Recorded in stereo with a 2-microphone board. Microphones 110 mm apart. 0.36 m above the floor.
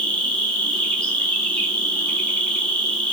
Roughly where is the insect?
Centre.